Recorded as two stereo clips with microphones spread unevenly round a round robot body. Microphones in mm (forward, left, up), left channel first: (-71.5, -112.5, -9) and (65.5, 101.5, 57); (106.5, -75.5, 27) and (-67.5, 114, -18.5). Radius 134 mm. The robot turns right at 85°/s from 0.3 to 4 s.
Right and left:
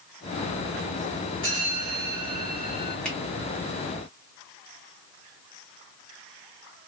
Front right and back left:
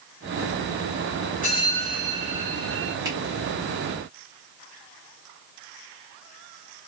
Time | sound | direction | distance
1.4 | a bell | 10° left | 1.2 m
3.0 | a finger snap | 175° left | 1.1 m